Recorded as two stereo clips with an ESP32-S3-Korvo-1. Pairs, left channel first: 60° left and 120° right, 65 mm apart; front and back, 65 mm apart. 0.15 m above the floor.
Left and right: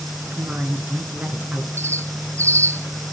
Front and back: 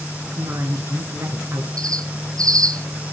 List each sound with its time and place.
0.3 s a woman speaking: 175° right, 2 m
1.8 s a bird: 165° right, 1.1 m